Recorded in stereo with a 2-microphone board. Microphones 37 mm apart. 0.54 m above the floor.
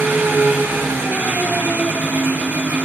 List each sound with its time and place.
0.0 s an engine running: 70° right (ahead or behind), 8.5 m